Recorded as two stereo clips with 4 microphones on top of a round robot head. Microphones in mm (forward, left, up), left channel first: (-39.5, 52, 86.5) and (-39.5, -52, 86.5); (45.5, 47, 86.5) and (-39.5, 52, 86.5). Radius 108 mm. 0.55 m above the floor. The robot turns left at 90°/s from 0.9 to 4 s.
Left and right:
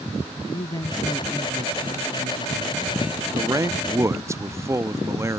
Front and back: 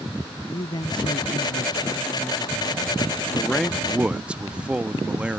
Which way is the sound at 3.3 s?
60° right.